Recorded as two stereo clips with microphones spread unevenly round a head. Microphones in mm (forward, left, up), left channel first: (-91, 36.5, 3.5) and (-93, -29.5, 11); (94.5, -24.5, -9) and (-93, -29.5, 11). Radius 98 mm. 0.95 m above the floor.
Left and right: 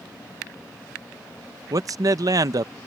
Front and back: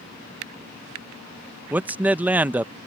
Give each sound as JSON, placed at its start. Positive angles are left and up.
{"t": 1.7, "sound": "a man speaking", "azimuth_deg": -95}